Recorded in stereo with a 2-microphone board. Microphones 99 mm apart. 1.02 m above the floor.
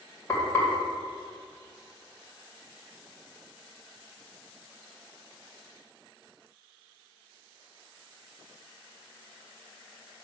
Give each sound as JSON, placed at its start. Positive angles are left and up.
{"t": 0.3, "sound": "frying", "side_deg": 25, "distance_m": 2.5}